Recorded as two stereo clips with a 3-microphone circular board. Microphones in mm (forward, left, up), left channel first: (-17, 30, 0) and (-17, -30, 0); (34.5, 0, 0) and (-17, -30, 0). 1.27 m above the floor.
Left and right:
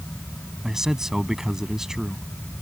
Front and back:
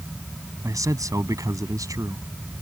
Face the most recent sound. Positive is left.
turn(degrees=-170)